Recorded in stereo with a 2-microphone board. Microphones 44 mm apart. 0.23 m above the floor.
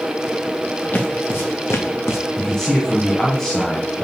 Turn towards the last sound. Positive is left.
turn(degrees=10)  # may be behind; listen again after turning